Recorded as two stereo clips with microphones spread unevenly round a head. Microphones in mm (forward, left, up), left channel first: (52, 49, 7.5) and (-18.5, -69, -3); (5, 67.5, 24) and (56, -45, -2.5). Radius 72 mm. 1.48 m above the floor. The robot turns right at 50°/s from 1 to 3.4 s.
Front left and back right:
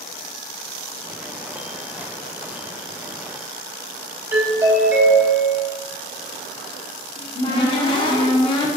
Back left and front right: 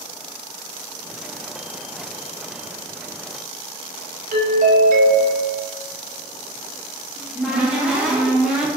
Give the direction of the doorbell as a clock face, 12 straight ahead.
2 o'clock.